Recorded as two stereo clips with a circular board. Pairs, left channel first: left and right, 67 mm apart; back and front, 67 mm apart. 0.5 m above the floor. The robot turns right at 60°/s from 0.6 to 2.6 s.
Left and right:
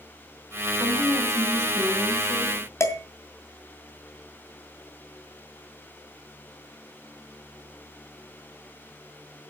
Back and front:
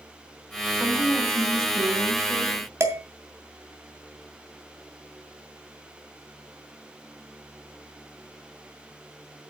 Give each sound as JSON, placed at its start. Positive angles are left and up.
{"t": 0.7, "sound": "a woman speaking", "azimuth_deg": -80, "distance_m": 4.0}
{"t": 2.8, "sound": "dishes clattering", "azimuth_deg": 45, "distance_m": 2.5}